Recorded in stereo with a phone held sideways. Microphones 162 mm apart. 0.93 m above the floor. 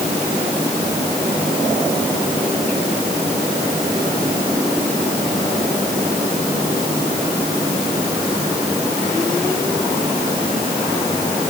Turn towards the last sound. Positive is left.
No sound to turn to.